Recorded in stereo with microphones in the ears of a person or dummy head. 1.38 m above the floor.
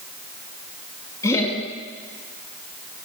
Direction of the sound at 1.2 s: 20° left (ahead or behind).